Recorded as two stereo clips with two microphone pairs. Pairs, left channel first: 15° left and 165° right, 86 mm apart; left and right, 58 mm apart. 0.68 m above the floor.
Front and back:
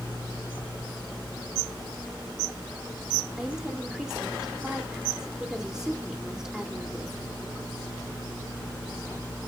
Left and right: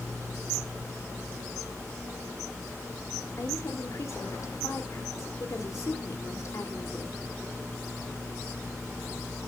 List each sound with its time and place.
3.4 s a woman speaking: 110° left, 2 m